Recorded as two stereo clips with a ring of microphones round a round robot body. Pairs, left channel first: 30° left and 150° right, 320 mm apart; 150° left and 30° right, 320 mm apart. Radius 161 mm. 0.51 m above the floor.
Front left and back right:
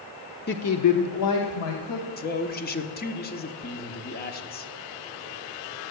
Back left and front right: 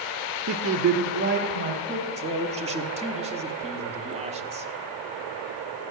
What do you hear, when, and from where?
0.5 s a woman speaking: 15° right, 1.0 m; by 2.1 s 35° left, 2.5 m
2.2 s a man speaking: 20° left, 1.2 m